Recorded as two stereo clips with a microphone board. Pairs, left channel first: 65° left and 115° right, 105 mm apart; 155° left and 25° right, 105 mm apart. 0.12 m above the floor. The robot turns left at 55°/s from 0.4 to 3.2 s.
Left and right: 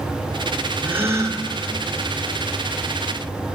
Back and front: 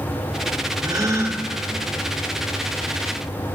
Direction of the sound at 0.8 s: 45° right.